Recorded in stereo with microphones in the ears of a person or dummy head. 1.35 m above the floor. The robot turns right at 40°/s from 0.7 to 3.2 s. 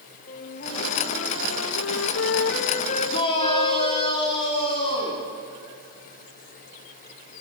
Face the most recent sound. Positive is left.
turn(degrees=35)  # may be behind; listen again after turning